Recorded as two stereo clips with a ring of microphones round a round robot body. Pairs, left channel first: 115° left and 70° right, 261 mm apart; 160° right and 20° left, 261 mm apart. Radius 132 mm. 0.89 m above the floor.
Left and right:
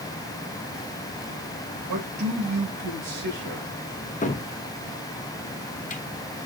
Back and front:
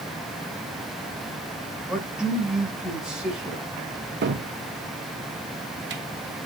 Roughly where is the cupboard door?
Ahead left.